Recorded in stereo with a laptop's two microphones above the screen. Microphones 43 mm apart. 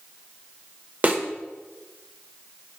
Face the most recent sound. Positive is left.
turn(degrees=-35)  # may be behind; listen again after turning